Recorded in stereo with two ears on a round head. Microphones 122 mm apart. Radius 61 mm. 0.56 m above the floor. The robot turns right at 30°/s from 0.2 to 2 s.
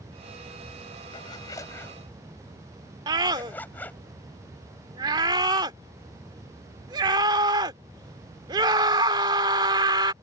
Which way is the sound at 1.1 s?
40° left (ahead or behind).